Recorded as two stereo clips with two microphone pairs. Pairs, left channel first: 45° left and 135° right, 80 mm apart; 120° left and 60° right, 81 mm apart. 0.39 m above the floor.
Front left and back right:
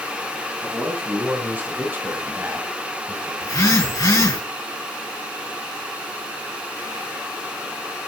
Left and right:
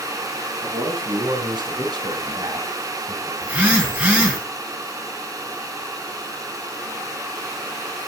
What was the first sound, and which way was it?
A man speaking, 65° right.